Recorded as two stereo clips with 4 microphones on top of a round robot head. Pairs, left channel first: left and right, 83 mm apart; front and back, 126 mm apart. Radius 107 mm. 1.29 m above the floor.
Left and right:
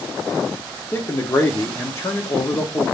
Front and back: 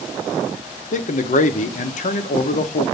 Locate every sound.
0.9 s a man speaking: 25° left, 0.7 m